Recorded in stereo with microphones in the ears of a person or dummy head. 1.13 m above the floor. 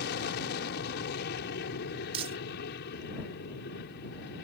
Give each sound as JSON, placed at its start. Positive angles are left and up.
{"t": 0.0, "sound": "an aircraft", "side_deg": 65}
{"t": 2.1, "sound": "crumpling", "side_deg": -25}